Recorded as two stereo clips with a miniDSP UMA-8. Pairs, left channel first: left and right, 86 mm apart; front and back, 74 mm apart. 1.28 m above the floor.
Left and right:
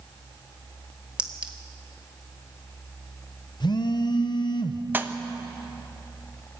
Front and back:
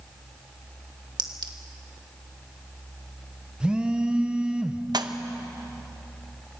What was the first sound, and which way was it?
A clink, 165° right.